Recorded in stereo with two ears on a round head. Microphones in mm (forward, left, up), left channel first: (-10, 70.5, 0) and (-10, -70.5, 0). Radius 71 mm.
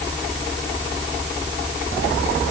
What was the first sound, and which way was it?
Only background noise.